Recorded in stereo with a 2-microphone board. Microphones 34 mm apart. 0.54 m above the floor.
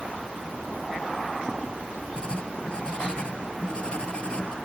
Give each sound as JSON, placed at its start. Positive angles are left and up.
{"t": 2.2, "sound": "writing", "side_deg": 35}